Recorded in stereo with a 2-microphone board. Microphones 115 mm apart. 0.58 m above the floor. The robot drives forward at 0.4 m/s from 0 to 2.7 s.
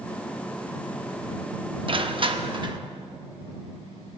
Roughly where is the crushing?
Right.